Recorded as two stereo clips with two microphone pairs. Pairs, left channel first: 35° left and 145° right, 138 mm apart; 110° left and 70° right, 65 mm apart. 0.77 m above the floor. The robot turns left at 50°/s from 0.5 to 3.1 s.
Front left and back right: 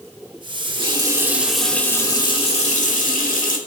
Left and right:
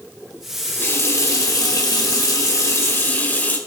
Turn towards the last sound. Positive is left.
turn(degrees=50)